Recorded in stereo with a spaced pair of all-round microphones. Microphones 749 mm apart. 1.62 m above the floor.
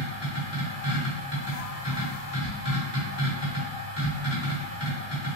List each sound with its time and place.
0.0 s a machine running: 35° left (ahead or behind), 1.6 m